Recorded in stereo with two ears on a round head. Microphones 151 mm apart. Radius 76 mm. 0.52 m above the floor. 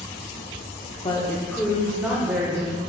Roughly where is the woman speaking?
Left.